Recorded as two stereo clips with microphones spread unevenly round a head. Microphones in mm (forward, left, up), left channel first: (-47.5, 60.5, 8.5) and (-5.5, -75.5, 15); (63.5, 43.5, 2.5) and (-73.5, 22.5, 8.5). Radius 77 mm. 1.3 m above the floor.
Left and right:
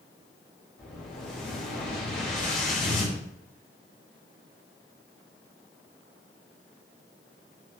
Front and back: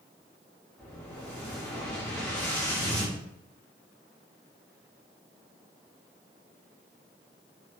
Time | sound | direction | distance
0.8 | an explosion | 85° left | 0.9 m